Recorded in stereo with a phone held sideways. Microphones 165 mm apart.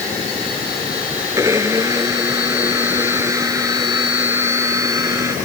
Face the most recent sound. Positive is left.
turn(degrees=-20)  # may be behind; listen again after turning